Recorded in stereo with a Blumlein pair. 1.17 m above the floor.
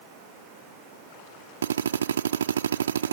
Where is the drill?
65° right.